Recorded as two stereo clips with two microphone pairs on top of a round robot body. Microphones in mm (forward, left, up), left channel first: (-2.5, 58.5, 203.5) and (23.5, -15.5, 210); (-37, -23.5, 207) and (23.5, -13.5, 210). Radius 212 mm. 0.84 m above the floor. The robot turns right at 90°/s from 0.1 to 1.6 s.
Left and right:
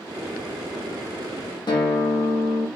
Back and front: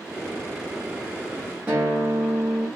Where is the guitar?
80° left, 0.7 m.